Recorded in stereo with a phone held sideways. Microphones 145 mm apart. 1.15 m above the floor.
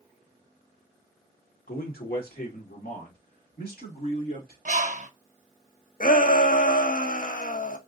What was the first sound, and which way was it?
A man speaking, 75° left (ahead or behind).